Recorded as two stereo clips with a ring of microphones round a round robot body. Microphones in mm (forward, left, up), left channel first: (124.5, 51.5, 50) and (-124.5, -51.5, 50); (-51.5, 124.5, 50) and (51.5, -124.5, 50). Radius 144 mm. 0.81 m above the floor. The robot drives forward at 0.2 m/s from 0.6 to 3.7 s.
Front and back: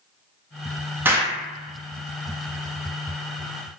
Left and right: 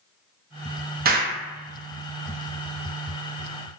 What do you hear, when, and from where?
1.1 s an explosion: 80° right, 0.5 m; by 3.8 s 150° right, 0.7 m